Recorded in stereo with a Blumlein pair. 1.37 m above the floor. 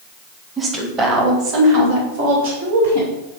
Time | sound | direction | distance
0.6 | a woman speaking | 15° right | 1.7 m